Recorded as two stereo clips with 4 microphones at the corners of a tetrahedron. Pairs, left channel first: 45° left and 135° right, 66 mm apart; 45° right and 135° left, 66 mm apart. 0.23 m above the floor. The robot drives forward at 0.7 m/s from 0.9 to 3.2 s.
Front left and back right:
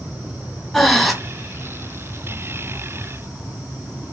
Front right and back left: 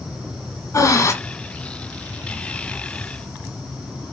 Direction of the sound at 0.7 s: 40° right.